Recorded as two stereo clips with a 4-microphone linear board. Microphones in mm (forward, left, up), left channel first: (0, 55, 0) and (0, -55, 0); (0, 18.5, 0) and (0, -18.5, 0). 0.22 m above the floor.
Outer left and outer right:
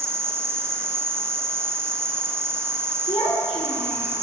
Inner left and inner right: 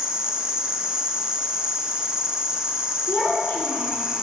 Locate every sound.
0.0 s an insect: 25° right (ahead or behind), 0.7 m
3.1 s a child speaking: 65° left (ahead or behind), 2 m